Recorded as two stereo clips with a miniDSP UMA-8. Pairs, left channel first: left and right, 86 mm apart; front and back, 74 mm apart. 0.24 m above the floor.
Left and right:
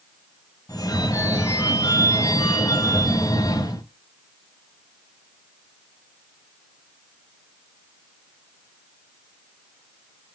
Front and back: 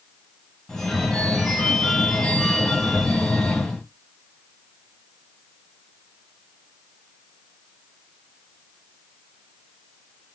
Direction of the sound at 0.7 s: 85° left.